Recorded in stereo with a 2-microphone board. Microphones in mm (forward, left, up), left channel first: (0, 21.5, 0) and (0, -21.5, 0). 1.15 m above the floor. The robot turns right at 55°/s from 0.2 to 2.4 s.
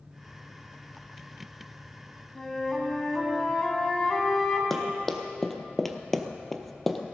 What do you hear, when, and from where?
2.4 s a flute: 10° left (ahead or behind), 2.5 m
4.7 s running footsteps: 5° left (ahead or behind), 2 m; by 7.1 s centre (ahead or behind), 1.7 m